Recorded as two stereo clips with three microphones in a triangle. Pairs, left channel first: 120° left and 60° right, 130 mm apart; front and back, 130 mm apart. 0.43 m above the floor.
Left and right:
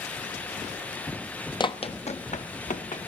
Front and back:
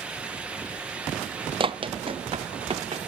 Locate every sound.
1.6 s running footsteps: 155° left, 0.5 m; by 3.1 s 135° left, 1.6 m